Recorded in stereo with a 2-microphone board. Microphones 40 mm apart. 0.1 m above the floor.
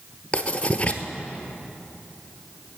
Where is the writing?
30° left (ahead or behind), 0.9 m.